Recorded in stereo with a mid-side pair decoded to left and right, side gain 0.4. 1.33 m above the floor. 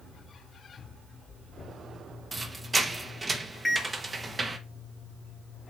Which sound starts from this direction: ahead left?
A microwave, at 3.6 s.